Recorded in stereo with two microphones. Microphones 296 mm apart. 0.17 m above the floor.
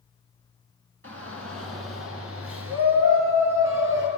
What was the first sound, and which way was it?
A shout, 50° right (ahead or behind).